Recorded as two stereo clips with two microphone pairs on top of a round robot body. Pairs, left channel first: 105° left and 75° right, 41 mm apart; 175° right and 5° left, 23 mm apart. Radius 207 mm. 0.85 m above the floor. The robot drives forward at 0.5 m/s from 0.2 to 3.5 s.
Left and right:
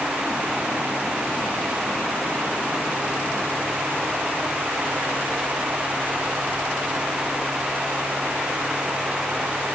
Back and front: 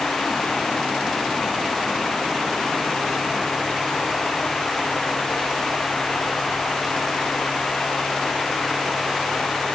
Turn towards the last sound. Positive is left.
No sound to turn to.